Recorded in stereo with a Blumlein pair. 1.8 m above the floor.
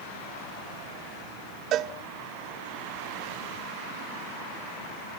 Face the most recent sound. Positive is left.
turn(degrees=-35)